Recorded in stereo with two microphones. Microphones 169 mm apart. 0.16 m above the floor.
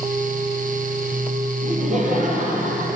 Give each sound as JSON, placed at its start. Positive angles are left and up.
{"t": 1.6, "sound": "laughter", "side_deg": -45, "distance_m": 3.0}